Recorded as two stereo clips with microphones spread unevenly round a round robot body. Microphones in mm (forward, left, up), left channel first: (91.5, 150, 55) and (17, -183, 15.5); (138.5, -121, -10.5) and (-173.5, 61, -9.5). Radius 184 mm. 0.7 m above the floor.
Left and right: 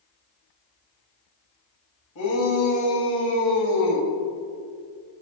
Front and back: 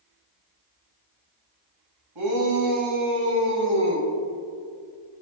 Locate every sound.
2.1 s a shout: 120° left, 5 m; by 4.1 s 100° left, 4 m